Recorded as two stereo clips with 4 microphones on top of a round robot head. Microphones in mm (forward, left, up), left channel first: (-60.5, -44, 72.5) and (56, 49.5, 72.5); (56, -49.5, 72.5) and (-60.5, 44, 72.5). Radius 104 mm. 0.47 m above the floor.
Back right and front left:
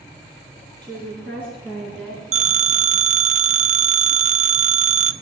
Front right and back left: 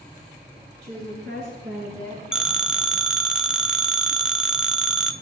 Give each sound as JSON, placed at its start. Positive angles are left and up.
{"t": 0.8, "sound": "a woman speaking", "azimuth_deg": 140, "distance_m": 9.5}
{"t": 2.3, "sound": "a phone ringing", "azimuth_deg": 55, "distance_m": 0.8}